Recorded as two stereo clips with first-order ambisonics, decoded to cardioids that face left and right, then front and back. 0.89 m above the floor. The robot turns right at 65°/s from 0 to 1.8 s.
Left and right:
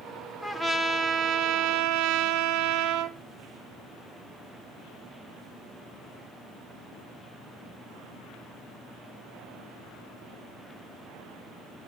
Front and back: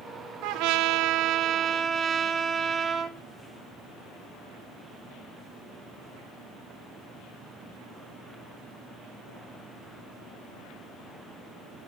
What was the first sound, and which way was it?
A trumpet, 175° left.